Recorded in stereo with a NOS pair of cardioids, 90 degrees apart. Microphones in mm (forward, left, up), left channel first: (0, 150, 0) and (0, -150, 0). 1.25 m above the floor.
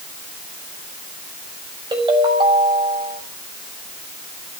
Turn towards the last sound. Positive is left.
turn(degrees=-15)